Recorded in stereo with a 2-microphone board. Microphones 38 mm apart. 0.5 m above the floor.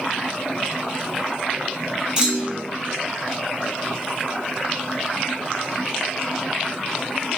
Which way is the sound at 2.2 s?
25° right (ahead or behind).